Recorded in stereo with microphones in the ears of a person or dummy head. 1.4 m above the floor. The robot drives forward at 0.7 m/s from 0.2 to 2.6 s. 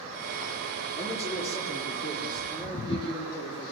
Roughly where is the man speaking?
Left.